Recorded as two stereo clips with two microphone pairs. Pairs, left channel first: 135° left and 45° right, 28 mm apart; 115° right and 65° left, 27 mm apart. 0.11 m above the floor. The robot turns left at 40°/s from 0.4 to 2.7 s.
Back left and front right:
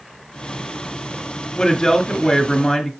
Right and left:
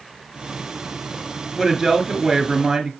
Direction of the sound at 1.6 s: 160° left.